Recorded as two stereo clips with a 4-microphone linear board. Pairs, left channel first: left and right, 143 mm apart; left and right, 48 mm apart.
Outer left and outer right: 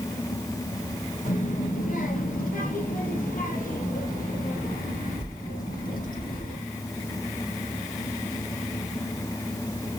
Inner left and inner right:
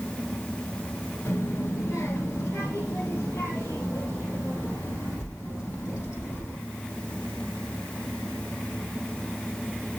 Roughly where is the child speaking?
Left.